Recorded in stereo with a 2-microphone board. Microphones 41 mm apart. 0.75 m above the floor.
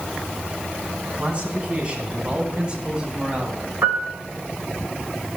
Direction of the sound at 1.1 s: 30° right (ahead or behind).